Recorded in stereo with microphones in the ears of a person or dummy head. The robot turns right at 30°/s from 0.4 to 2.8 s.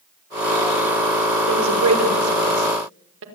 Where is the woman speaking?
80° right, 5 m; by 3.2 s 60° right (ahead or behind), 5 m.